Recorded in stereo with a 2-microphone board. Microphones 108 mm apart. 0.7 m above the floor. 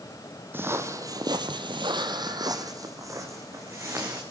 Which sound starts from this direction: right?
Footsteps, at 0.5 s.